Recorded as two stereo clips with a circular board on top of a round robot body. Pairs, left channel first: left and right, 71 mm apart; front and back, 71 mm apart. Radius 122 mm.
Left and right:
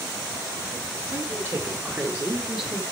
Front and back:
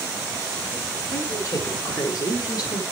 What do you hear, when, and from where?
1.1 s a woman speaking: 45° right, 2 m; by 2.8 s 5° left, 2.5 m